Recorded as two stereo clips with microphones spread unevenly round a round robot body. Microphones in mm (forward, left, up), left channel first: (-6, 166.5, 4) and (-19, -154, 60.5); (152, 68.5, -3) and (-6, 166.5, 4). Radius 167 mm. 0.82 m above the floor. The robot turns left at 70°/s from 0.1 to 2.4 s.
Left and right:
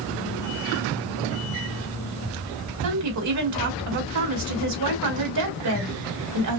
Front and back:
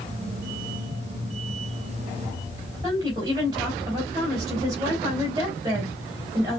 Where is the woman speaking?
135° right, 3 m.